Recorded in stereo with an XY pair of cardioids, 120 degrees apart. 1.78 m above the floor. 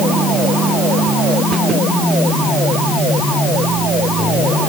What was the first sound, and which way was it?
Only background noise.